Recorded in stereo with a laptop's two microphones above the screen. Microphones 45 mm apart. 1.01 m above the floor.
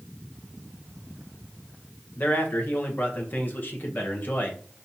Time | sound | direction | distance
2.2 | a man speaking | 50° left (ahead or behind) | 0.8 m